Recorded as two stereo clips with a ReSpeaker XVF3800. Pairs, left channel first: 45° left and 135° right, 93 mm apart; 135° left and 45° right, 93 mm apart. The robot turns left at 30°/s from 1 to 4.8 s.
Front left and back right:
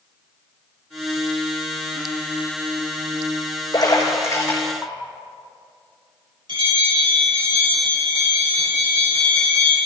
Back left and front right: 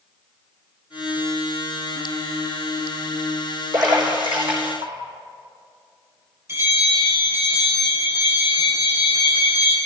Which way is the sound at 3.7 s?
Straight ahead.